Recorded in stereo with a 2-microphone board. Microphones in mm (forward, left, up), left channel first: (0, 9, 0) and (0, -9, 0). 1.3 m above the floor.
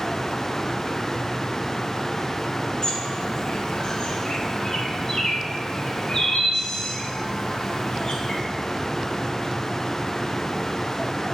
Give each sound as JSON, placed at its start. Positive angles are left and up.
{"t": 2.8, "sound": "a bird", "side_deg": 45, "distance_m": 0.5}